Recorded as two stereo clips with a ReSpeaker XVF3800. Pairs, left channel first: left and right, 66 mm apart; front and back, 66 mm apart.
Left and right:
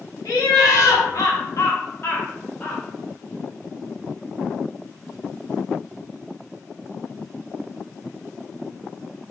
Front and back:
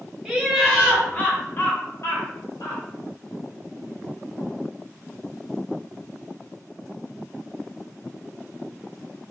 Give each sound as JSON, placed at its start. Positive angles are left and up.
{"t": 0.2, "sound": "laughter", "azimuth_deg": 95, "distance_m": 1.1}